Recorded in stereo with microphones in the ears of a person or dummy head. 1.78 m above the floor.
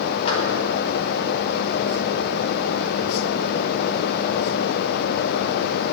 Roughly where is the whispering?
I don't hear whispering.